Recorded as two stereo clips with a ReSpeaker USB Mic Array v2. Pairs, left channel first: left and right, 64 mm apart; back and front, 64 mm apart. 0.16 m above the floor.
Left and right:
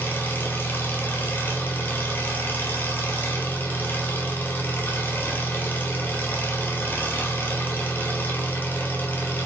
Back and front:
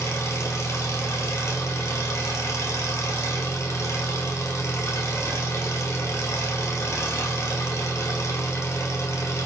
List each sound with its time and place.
0.0 s an engine running: 145° left, 1.5 m